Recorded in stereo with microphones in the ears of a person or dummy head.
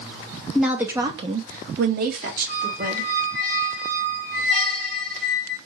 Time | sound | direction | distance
0.6 | a woman speaking | centre (ahead or behind) | 0.5 m
2.5 | a squeak | 5° left (ahead or behind) | 1.4 m